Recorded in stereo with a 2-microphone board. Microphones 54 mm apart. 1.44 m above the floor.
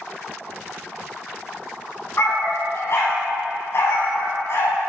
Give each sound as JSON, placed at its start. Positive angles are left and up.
{"t": 2.2, "sound": "a dog barking", "side_deg": 55, "distance_m": 3.0}